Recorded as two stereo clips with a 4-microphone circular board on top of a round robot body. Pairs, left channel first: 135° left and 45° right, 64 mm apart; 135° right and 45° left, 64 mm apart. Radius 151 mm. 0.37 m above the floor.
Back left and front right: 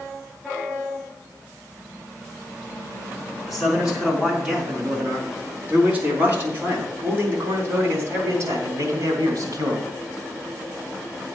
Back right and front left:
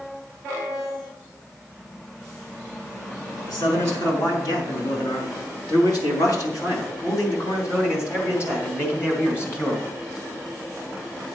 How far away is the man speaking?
About 5 m.